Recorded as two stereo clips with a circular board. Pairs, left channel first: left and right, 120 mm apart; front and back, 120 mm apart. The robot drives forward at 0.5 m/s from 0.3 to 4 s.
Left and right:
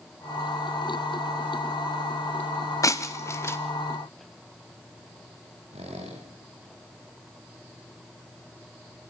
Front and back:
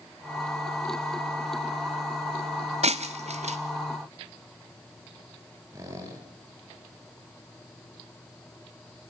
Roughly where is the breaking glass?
Behind left.